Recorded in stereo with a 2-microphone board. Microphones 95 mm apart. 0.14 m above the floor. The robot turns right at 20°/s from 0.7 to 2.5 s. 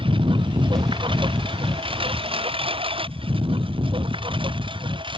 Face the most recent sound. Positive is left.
turn(degrees=-65)  # may be behind; listen again after turning